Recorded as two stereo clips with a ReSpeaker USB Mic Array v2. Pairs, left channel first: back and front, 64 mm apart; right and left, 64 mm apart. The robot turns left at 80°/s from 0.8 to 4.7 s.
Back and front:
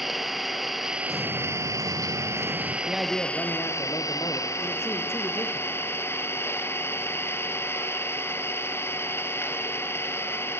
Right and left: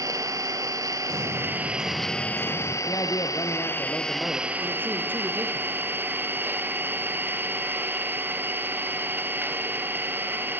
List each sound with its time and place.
0.0 s an engine running: 90° left, 2.5 m; by 10.6 s 140° left, 2.5 m
1.1 s an explosion: 95° left, 5 m; by 2.8 s 40° right, 5 m
2.9 s a man speaking: 70° right, 3 m; by 5.7 s 145° left, 3 m